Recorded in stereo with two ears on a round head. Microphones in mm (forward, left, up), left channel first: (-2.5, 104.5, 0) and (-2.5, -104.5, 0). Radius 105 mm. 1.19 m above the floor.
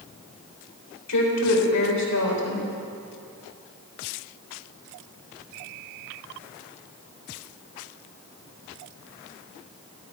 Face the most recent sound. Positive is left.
turn(degrees=85)